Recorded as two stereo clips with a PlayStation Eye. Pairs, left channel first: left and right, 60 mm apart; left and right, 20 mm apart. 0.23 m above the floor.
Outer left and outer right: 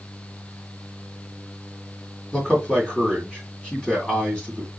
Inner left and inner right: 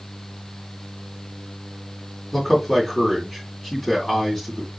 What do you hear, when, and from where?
2.3 s a man speaking: 15° left (ahead or behind), 2.5 m